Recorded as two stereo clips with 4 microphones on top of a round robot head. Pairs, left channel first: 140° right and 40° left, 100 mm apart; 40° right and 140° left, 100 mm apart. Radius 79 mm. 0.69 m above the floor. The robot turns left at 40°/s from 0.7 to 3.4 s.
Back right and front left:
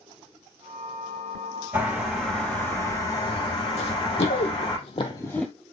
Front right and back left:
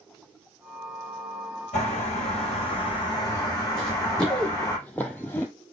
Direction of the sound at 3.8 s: 120° right.